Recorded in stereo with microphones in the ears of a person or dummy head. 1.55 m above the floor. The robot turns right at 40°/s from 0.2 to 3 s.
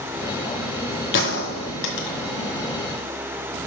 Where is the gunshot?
60° left (ahead or behind), 1.7 m.